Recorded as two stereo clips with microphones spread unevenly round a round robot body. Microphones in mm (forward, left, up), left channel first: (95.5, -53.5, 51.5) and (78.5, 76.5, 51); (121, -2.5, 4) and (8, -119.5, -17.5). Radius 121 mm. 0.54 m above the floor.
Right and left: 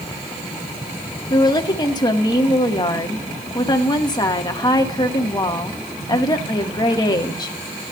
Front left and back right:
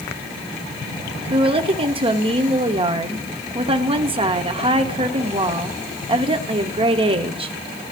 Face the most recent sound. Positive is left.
turn(degrees=-125)